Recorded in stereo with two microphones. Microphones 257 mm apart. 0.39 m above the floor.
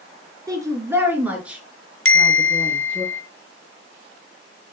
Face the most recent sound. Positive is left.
turn(degrees=55)  # may be behind; listen again after turning